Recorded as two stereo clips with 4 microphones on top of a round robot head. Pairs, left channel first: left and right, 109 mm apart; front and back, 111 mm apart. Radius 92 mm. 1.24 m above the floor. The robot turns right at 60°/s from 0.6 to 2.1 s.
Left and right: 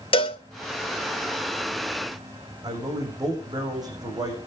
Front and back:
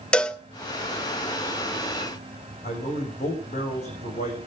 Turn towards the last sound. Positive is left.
turn(degrees=-35)